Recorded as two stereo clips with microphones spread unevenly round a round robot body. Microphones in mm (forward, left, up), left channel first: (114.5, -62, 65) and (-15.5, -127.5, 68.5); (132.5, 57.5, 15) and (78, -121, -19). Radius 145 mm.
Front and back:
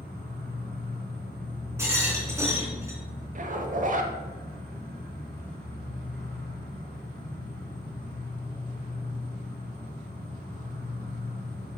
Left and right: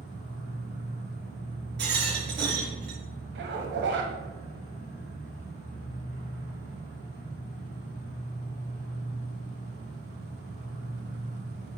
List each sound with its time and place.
0.0 s an insect: 145° right, 2.5 m
1.8 s a rattle: 80° right, 3 m
3.4 s a zipper: 125° right, 1.0 m